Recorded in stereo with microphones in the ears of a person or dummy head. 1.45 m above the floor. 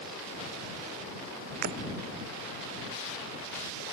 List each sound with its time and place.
1.6 s breaking glass: 50° right (ahead or behind)